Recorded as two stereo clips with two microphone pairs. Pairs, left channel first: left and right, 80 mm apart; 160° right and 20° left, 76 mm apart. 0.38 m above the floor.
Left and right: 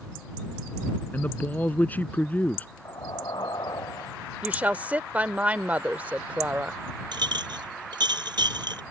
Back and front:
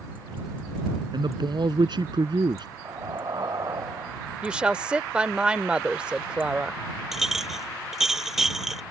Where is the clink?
65° right.